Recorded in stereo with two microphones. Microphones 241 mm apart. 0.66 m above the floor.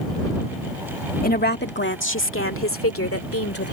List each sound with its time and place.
1.2 s a woman speaking: 35° left (ahead or behind); by 3.7 s 70° left (ahead or behind)